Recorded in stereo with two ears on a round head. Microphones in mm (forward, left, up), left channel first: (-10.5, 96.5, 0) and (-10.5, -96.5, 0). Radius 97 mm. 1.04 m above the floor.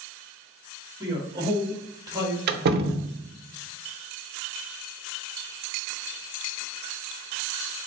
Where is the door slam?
45° right (ahead or behind), 0.5 m.